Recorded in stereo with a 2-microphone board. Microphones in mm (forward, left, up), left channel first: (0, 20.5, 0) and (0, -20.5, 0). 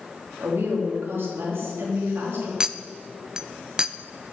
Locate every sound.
0.4 s a woman speaking: 70° right (ahead or behind), 3.5 m
2.6 s a clink: 15° right (ahead or behind), 0.5 m